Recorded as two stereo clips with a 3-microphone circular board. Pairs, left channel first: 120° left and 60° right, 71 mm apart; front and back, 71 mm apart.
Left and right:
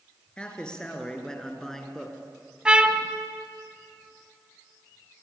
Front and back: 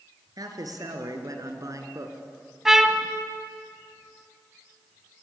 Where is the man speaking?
165° right, 3.5 m; by 2.1 s 150° right, 2.5 m.